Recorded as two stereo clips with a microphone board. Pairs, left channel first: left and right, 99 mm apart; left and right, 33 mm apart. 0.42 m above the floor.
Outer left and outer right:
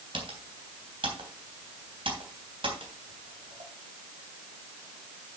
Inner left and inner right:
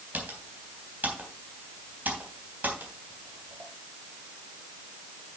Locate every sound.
0.1 s typing on a keyboard: 60° right (ahead or behind), 3.5 m